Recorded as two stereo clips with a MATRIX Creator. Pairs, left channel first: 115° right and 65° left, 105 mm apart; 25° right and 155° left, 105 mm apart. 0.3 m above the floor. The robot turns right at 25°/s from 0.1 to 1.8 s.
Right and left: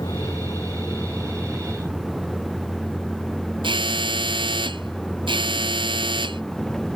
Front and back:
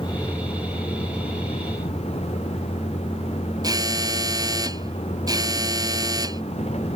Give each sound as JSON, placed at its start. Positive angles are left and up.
{"t": 0.0, "sound": "a vehicle", "azimuth_deg": -65}
{"t": 3.6, "sound": "an alarm", "azimuth_deg": 105}